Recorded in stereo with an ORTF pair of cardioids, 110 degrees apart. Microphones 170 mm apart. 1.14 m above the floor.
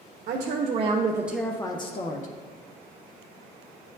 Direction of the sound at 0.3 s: 55° right.